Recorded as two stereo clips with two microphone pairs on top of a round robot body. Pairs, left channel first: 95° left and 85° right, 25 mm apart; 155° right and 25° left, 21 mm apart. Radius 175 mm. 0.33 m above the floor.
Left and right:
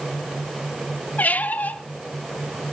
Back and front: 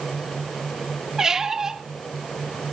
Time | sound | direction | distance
1.2 | a squeak | 90° left | 0.6 m